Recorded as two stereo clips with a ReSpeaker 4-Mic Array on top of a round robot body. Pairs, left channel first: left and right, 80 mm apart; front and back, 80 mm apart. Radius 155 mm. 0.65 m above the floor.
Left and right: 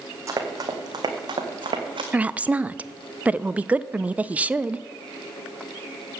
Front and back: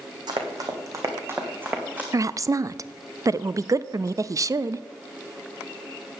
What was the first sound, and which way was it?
Running footsteps, 145° right.